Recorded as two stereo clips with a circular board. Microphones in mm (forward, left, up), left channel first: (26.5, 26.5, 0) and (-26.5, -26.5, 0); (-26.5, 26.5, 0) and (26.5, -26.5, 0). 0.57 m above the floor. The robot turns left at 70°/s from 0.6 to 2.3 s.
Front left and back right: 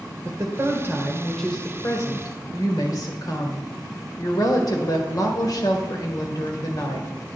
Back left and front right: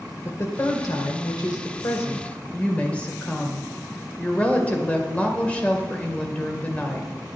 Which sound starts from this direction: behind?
A woman speaking, at 0.2 s.